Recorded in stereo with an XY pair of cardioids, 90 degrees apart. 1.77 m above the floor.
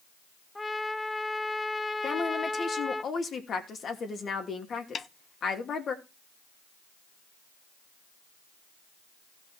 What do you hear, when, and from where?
0.6 s a trumpet: 15° left, 1.1 m
2.0 s a woman speaking: 55° left, 3 m
5.0 s a snare drum: 45° left, 0.7 m